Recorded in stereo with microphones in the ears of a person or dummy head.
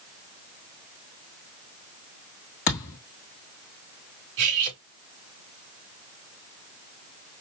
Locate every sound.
2.7 s a thud: 30° left (ahead or behind), 1.6 m
4.4 s cutlery clinking: 65° right (ahead or behind), 3 m